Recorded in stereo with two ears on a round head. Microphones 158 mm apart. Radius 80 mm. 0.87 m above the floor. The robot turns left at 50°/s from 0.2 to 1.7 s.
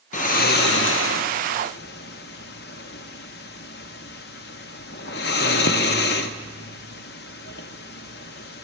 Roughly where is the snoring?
Left.